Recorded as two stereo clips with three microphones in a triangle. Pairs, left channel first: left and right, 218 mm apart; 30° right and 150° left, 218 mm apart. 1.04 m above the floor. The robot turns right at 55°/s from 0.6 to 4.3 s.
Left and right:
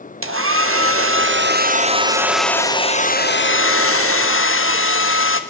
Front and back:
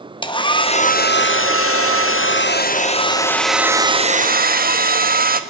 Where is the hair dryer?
100° right, 1.1 m; by 5.4 s 105° left, 1.1 m.